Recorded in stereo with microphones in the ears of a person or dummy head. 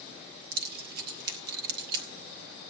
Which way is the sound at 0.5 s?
55° right (ahead or behind).